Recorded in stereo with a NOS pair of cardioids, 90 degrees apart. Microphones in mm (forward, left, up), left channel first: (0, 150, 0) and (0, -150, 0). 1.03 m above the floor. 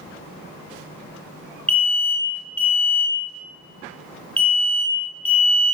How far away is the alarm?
About 0.7 m.